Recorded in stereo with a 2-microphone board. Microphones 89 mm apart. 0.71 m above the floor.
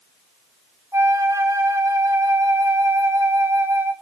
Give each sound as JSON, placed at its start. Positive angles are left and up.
{"t": 0.9, "sound": "a flute", "side_deg": -30, "distance_m": 0.6}